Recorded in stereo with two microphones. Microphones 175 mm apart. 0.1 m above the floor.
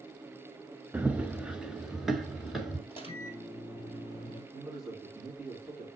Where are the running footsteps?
10° right (ahead or behind), 0.6 m; by 2.8 s centre (ahead or behind), 1.8 m.